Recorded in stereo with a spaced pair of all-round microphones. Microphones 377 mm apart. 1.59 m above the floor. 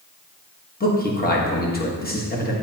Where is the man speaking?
25° left (ahead or behind), 1.4 m.